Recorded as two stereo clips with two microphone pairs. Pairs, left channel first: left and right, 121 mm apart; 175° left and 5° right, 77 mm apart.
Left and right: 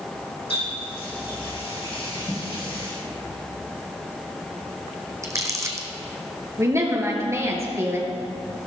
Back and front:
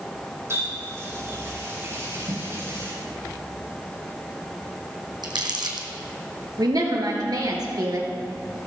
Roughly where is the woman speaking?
Ahead right.